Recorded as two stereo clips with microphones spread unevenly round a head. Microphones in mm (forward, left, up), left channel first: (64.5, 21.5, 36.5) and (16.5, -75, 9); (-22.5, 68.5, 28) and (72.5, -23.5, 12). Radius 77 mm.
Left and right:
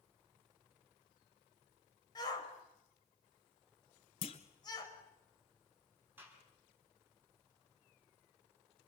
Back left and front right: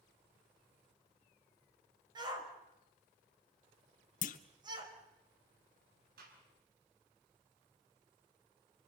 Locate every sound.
2.1 s a shout: 15° left, 5 m
4.2 s a clunk: 115° left, 1.1 m
6.2 s a gunshot: 45° right, 6.5 m